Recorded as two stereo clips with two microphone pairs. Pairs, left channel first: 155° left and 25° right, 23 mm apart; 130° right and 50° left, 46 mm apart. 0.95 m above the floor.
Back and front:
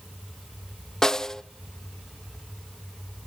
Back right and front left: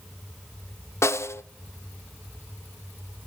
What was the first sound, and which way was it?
A snare drum, 140° right.